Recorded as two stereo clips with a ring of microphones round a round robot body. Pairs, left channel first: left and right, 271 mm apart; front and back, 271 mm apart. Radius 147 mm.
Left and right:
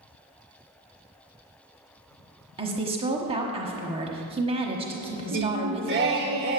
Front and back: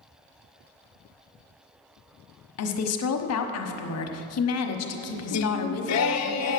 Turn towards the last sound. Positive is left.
turn(degrees=-35)